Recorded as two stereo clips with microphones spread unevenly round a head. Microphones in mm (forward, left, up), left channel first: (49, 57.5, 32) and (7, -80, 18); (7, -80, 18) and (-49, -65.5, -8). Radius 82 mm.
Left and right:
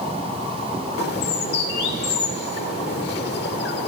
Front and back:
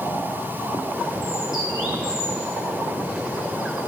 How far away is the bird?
About 1.6 m.